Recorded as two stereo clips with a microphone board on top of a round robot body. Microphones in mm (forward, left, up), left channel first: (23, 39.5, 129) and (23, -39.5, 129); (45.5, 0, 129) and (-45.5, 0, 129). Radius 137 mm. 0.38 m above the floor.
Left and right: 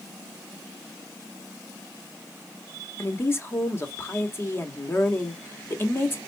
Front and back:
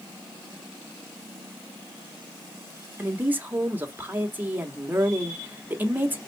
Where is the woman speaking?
125° left, 1.4 m.